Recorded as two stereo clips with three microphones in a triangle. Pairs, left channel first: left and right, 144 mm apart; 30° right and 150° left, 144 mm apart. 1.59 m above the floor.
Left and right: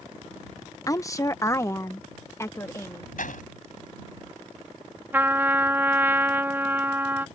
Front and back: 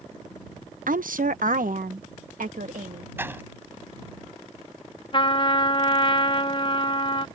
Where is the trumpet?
25° right.